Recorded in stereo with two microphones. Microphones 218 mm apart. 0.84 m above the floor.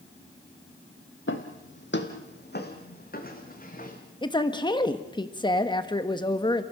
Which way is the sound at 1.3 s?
65° left (ahead or behind).